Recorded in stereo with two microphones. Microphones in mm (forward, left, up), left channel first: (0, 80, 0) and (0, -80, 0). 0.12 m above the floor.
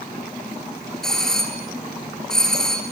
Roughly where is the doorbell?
Centre.